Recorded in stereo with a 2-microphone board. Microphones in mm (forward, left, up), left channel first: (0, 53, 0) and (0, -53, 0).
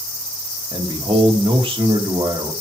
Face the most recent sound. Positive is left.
turn(degrees=-60)  # may be behind; listen again after turning